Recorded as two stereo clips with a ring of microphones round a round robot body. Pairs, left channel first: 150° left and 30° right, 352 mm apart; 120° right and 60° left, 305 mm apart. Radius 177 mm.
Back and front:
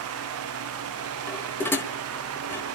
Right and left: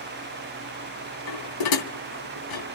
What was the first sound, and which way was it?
Dishes clattering, 125° right.